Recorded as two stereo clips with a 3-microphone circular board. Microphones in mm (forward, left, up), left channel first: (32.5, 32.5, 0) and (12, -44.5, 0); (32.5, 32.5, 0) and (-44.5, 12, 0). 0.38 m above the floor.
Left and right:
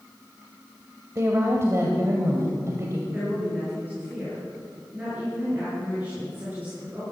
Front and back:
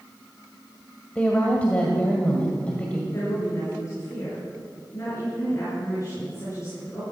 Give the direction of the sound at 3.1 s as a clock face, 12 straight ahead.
1 o'clock.